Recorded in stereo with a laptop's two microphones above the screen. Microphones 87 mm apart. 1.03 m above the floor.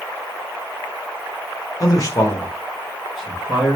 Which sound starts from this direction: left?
A man speaking, at 1.8 s.